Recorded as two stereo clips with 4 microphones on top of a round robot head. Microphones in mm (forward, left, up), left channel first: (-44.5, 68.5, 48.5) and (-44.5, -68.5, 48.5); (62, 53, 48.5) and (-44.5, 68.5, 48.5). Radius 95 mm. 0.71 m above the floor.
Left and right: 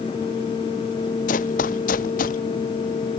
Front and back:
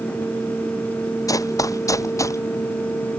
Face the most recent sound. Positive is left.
turn(degrees=55)